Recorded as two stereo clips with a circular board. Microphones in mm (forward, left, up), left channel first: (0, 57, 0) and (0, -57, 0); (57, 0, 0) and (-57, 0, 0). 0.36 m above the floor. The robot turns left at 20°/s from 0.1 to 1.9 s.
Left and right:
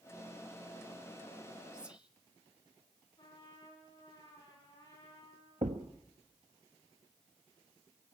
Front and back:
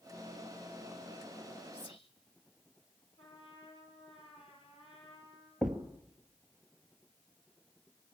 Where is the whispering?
5° right, 1.6 m; by 2.1 s 10° right, 1.6 m.